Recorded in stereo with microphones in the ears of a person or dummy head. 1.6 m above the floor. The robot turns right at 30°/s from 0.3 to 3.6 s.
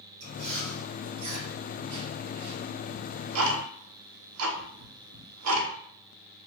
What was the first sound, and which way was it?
Chewing, 50° right (ahead or behind).